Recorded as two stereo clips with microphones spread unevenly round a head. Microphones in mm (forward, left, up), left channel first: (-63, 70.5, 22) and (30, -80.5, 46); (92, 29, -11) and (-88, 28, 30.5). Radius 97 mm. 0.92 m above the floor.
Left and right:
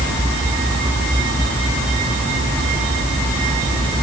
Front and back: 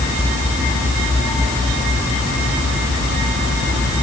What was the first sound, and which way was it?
Only background noise.